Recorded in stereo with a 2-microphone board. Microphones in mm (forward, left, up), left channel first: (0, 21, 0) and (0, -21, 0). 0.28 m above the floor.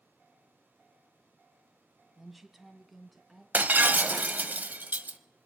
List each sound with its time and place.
2.2 s a woman speaking: 10° right (ahead or behind), 1.3 m; by 3.4 s centre (ahead or behind), 3 m
3.5 s breaking glass: 45° right (ahead or behind), 0.7 m